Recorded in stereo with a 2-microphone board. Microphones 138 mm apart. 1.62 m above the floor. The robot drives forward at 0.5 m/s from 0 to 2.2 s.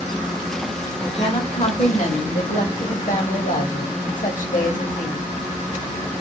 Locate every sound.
1.0 s a woman speaking: 45° left (ahead or behind), 1.2 m; by 5.3 s 75° left (ahead or behind), 0.9 m